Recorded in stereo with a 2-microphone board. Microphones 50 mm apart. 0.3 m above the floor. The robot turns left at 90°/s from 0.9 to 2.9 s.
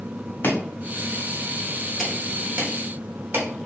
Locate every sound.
0.4 s chopping: 45° left (ahead or behind), 2 m; by 3.5 s 45° right (ahead or behind), 2 m